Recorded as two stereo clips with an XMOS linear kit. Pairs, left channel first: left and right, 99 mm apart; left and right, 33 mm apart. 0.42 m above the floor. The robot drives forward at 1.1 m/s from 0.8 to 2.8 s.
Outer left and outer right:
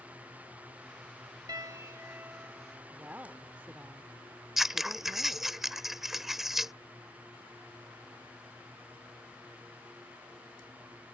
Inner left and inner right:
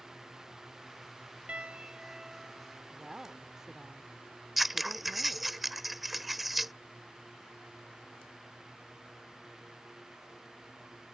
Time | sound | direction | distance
1.5 | a piano | 40° right (ahead or behind) | ?
2.9 | a woman speaking | 15° right (ahead or behind) | ?
4.6 | scissors | 5° right (ahead or behind) | ?